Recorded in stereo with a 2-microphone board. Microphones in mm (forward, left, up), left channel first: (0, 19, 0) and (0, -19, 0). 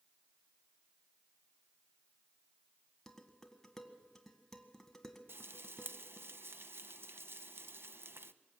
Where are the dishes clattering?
10° left (ahead or behind), 1.7 m.